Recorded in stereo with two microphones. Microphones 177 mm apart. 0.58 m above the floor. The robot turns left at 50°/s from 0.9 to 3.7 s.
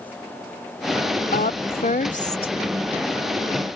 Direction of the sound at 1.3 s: 95° left.